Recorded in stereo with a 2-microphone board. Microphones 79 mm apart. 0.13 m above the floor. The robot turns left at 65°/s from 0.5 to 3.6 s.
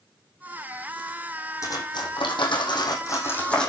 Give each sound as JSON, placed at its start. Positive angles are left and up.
{"t": 1.6, "sound": "cutlery clinking", "side_deg": 40, "distance_m": 4.0}